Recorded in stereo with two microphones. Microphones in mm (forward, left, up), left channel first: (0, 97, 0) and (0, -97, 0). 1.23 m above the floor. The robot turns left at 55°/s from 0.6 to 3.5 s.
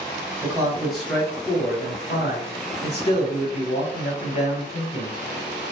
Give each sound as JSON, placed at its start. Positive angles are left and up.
{"t": 0.4, "sound": "a man speaking", "azimuth_deg": -160, "distance_m": 1.2}